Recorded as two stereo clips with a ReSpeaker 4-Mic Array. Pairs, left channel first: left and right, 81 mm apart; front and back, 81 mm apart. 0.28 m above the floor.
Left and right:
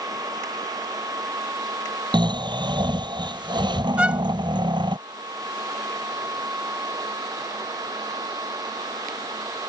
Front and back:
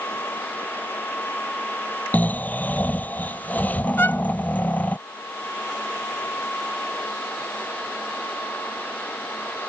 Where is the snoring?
70° right.